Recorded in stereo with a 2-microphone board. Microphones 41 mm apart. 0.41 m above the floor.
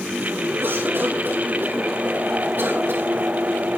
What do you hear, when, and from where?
0.6 s a cough: 65° right (ahead or behind), 6 m